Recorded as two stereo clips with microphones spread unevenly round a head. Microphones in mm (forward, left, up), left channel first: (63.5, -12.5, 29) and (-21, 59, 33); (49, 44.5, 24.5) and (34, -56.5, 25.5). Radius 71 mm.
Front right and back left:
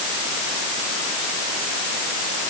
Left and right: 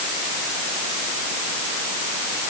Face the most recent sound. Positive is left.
No sound to turn to.